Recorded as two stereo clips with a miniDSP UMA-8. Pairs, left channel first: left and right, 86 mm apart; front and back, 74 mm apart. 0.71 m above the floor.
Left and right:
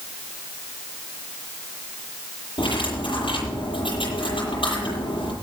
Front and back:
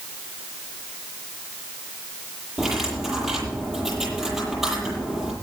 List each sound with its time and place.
2.6 s cutlery clinking: 95° left, 10 m